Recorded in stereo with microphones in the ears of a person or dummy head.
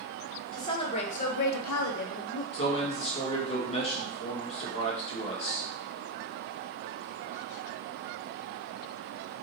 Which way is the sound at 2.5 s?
35° left (ahead or behind).